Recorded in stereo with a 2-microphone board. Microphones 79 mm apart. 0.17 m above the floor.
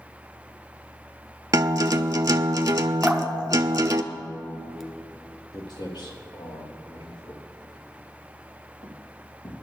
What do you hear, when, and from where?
1.5 s a guitar: 45° right (ahead or behind), 0.6 m
3.0 s dripping: centre (ahead or behind), 1.0 m
5.5 s footsteps: 60° left (ahead or behind), 3 m; by 9.5 s 75° left (ahead or behind), 3 m